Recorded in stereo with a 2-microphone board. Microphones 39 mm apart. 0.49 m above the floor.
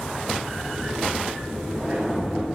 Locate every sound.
0.4 s a sliding door: 20° right (ahead or behind), 5.5 m